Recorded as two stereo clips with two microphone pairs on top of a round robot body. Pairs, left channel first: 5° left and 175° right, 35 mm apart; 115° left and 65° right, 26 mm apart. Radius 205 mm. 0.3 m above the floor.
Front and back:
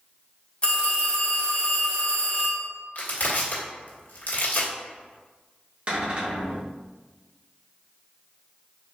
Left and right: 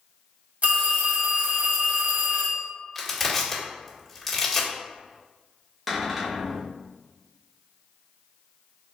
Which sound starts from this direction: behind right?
A cupboard door, at 5.9 s.